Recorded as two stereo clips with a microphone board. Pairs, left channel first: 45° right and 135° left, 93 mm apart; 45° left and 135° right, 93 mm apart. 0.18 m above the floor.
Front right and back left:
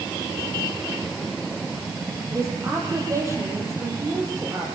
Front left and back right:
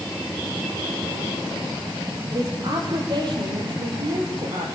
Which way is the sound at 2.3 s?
170° right.